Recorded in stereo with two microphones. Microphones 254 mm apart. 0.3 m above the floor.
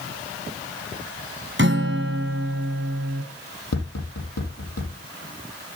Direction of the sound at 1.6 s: 50° right (ahead or behind).